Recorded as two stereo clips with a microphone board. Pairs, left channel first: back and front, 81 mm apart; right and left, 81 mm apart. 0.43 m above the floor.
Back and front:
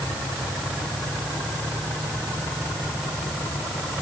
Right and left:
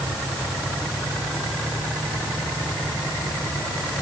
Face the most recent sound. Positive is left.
No sound to turn to.